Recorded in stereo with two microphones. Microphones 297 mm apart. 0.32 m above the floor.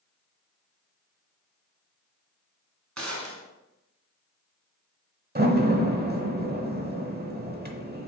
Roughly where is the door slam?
Right.